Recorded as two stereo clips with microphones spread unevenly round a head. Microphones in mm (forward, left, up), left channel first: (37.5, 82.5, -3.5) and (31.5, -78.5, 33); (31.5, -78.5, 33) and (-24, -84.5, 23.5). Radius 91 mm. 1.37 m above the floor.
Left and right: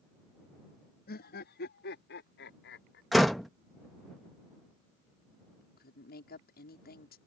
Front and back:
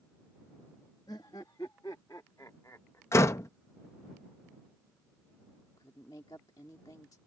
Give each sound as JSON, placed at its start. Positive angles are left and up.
{"t": 1.1, "sound": "laughter", "azimuth_deg": 60}
{"t": 3.1, "sound": "a door slam", "azimuth_deg": -10}
{"t": 5.8, "sound": "a woman speaking", "azimuth_deg": 60}